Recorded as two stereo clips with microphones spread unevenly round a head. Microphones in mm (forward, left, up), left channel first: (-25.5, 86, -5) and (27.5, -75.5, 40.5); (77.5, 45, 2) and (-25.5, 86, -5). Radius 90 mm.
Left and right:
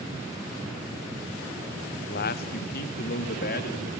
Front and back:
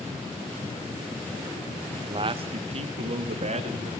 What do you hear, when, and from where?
1.9 s a man speaking: 115° left, 1.0 m; by 3.9 s 140° left, 2.5 m